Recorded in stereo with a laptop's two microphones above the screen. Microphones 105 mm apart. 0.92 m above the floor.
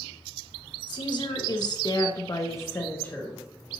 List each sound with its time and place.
0.9 s a woman speaking: 45° left (ahead or behind), 1.3 m; by 3.4 s 5° left (ahead or behind), 1.0 m